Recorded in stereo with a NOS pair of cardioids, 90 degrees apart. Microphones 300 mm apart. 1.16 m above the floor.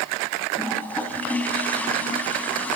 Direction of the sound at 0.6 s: 5° left.